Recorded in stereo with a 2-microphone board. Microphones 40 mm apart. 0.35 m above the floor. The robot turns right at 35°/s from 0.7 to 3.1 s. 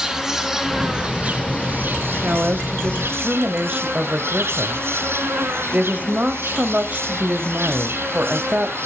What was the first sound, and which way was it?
An insect, 170° right.